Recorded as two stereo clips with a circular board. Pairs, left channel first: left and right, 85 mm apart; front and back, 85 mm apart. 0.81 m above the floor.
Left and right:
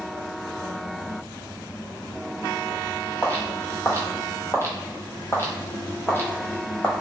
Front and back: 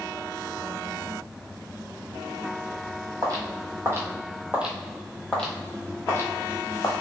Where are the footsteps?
150° left, 1.3 m; by 6.9 s 30° left, 1.4 m.